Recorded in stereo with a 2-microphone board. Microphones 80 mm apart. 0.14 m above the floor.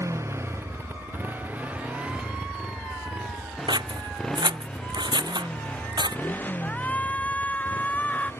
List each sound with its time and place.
0.0 s a motorcycle: 40° right (ahead or behind); by 8.4 s 30° left (ahead or behind)
3.7 s scissors: 65° right (ahead or behind)
6.6 s a shout: 20° left (ahead or behind)